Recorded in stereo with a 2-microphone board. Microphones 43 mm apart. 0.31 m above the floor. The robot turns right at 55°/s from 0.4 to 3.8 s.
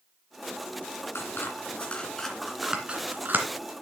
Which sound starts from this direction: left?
Scissors, at 1.1 s.